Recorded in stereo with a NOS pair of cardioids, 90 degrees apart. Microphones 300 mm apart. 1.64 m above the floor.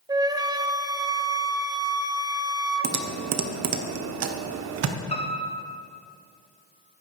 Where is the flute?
15° right, 0.7 m.